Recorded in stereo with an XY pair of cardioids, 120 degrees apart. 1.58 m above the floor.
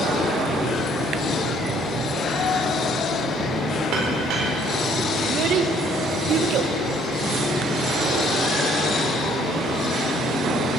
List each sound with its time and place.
3.9 s a clink: 70° right, 4 m
5.2 s a child speaking: 65° right, 1.2 m